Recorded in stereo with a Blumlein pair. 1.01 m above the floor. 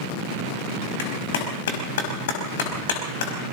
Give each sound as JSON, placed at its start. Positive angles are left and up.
{"t": 1.0, "sound": "a clap", "azimuth_deg": 55, "distance_m": 5.0}